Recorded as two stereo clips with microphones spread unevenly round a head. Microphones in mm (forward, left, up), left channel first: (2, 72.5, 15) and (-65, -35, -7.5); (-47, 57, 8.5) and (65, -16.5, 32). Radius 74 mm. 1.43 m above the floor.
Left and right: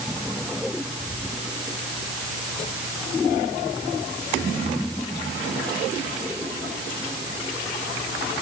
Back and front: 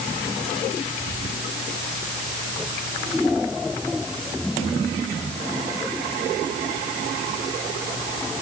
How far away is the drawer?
No drawer in this recording.